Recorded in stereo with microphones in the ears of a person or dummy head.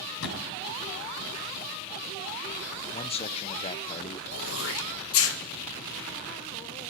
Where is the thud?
80° left, 4 m.